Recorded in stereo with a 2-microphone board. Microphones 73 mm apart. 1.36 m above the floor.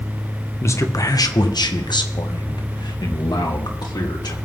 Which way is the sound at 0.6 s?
40° left (ahead or behind).